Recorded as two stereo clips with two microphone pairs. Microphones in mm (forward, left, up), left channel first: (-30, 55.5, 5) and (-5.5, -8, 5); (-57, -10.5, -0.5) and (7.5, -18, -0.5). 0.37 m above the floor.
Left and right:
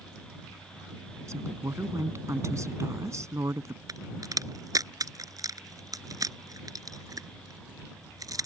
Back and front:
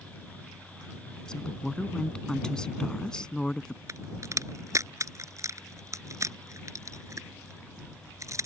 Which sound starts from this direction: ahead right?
A crack, at 3.9 s.